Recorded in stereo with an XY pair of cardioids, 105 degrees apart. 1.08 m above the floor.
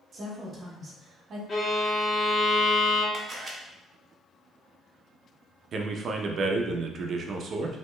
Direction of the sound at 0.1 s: 45° right.